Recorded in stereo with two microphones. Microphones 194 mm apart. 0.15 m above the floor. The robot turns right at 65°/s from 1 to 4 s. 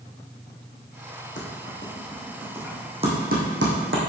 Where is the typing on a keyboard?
75° left (ahead or behind), 3 m; by 4.1 s 80° right, 3 m.